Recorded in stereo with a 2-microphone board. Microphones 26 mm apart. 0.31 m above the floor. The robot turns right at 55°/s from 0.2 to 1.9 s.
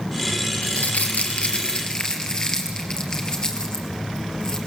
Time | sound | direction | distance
0.6 | crumpling | 80° left | 3 m